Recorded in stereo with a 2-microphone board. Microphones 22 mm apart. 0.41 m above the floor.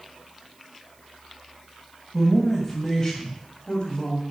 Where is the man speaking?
5° left (ahead or behind), 3 m; by 4.2 s 50° left (ahead or behind), 2.5 m.